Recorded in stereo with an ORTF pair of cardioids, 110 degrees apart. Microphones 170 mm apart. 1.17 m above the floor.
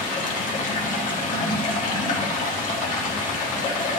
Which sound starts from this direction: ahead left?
Running water, at 0.0 s.